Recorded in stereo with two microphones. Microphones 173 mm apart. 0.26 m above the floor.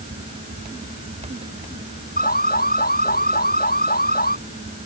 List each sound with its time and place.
2.2 s an alarm: 60° left (ahead or behind)